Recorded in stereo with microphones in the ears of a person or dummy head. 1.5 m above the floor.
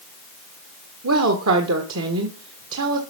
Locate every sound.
1.0 s a woman speaking: 85° right, 1.6 m